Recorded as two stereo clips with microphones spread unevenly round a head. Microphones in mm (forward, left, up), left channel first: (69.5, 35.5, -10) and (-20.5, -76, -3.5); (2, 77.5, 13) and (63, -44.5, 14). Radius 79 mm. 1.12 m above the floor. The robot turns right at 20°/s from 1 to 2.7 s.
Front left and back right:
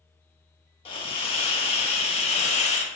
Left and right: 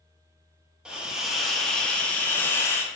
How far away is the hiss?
About 0.6 m.